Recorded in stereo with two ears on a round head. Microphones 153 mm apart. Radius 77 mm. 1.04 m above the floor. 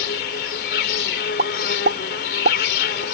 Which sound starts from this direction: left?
An insect, at 0.0 s.